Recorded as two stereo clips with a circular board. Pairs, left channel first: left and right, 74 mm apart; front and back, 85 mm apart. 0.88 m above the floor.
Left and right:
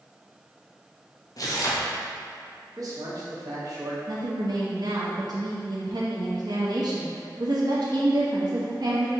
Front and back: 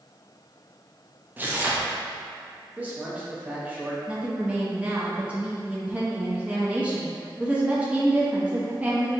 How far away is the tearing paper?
About 0.7 m.